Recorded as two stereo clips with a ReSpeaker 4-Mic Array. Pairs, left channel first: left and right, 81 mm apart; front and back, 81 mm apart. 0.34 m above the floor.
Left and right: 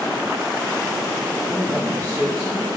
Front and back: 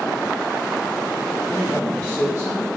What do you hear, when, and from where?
1.5 s a man speaking: 120° right, 1.4 m; by 2.7 s 30° right, 2 m